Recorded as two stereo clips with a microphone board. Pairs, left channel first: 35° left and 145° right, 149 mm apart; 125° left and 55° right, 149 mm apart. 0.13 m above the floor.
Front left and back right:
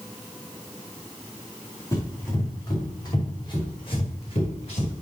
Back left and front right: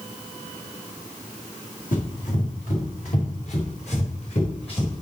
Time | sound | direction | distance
1.9 | running footsteps | 105° left | 4.5 m